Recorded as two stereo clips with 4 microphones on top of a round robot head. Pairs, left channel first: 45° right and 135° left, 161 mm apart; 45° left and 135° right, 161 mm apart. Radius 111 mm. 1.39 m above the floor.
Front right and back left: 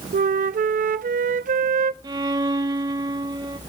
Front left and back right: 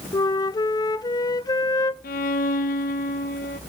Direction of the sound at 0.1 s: 110° left.